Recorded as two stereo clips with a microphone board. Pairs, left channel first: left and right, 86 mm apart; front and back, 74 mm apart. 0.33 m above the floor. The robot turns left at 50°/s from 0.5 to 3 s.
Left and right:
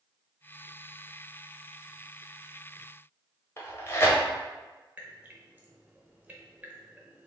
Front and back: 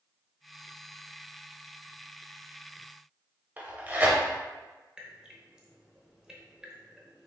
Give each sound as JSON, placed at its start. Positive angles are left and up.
{"t": 3.6, "sound": "tearing paper", "azimuth_deg": 125, "distance_m": 0.9}
{"t": 5.0, "sound": "dripping", "azimuth_deg": -115, "distance_m": 0.8}